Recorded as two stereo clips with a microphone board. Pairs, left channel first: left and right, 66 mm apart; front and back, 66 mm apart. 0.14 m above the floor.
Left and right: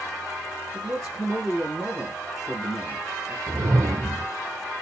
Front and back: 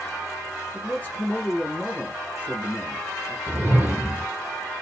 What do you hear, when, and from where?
0.7 s a man speaking: 10° right, 1.8 m
3.5 s a whoosh: 120° right, 1.0 m